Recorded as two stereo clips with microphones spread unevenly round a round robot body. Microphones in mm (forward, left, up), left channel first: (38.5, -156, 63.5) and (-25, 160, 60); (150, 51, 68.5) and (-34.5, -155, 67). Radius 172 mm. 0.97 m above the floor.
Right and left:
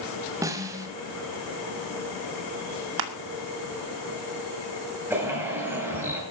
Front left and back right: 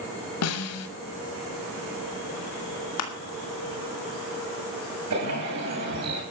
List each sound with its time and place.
0.4 s a snare drum: 20° left, 1.6 m
3.0 s crushing: 90° left, 2.5 m
5.1 s a bird: 175° right, 8 m